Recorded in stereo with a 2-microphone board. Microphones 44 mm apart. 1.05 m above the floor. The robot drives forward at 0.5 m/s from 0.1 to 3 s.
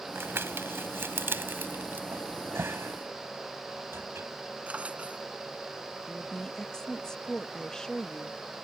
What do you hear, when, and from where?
0.1 s crumpling: 70° right (ahead or behind); by 2.0 s 55° right (ahead or behind)
2.1 s a cupboard door: 75° right (ahead or behind); by 4.3 s 70° right (ahead or behind)
4.7 s a drawer: 35° right (ahead or behind)
6.1 s a woman speaking: 15° left (ahead or behind)